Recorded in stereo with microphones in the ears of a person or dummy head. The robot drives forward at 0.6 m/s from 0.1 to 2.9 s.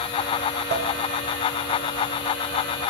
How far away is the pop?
About 1.2 m.